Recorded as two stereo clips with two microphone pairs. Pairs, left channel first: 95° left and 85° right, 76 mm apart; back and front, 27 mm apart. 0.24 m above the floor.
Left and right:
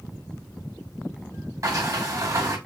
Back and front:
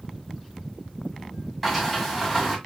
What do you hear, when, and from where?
1.6 s a sliding door: 95° right, 2 m